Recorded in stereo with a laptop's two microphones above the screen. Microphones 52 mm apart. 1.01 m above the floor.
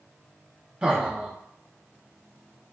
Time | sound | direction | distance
0.8 | laughter | 20° right (ahead or behind) | 0.5 m